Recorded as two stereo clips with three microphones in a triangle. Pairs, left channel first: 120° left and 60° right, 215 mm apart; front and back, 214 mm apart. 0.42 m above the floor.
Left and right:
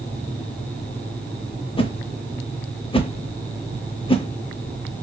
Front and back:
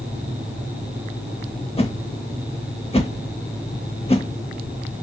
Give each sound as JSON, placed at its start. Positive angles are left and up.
{"t": 1.8, "sound": "a whoosh", "azimuth_deg": 55, "distance_m": 0.7}